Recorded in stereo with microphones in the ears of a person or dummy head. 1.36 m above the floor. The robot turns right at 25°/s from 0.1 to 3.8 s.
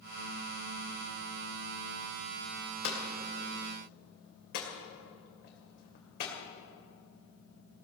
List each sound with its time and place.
2.8 s hammering: 70° left (ahead or behind), 2.5 m; by 6.3 s 55° left (ahead or behind), 2.5 m